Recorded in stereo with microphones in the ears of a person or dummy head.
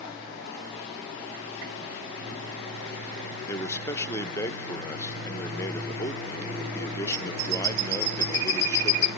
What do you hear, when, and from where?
3.5 s a man speaking: 10° left (ahead or behind), 0.7 m